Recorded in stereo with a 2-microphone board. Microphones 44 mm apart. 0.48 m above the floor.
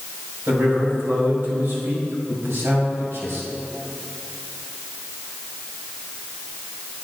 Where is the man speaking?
55° right (ahead or behind), 2.5 m; by 3.4 s 70° right (ahead or behind), 3 m.